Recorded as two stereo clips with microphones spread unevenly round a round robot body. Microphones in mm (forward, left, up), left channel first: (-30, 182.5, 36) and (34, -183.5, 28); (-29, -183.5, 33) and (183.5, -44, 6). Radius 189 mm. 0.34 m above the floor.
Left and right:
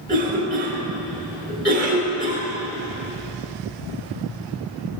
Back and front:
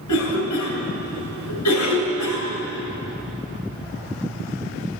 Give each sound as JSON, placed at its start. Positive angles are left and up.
{"t": 0.1, "sound": "a cough", "azimuth_deg": -160, "distance_m": 3.5}